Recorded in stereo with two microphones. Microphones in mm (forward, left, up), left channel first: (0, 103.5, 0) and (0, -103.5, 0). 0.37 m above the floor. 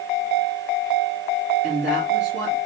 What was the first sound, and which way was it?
A woman speaking, 60° right (ahead or behind).